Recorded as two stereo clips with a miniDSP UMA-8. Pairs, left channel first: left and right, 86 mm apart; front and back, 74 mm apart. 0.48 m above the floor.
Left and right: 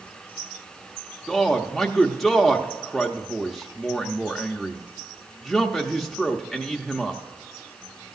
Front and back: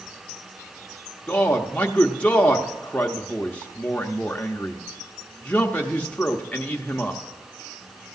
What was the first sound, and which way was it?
A man speaking, 5° left.